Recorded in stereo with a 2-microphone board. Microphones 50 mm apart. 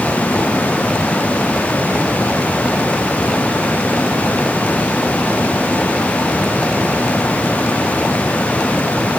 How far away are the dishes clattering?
No dishes clattering in this recording.